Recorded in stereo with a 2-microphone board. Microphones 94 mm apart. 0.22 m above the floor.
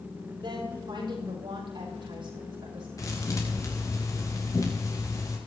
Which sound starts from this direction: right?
A woman speaking, at 0.4 s.